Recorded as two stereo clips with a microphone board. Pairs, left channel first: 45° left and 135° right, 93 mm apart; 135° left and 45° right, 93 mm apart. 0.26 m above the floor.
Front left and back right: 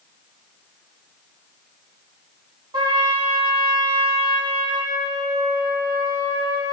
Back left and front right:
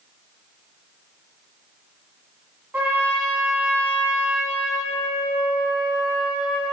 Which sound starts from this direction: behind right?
A trumpet, at 2.7 s.